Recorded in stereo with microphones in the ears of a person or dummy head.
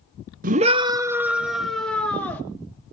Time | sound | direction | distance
0.4 | a scream | 40° right (ahead or behind) | 0.6 m